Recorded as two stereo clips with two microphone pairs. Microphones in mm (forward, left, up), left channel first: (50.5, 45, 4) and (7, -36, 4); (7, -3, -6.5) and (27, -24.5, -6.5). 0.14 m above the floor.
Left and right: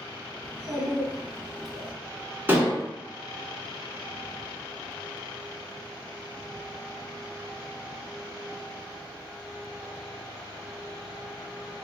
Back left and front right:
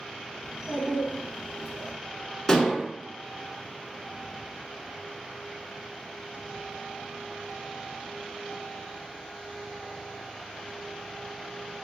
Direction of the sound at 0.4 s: 20° right.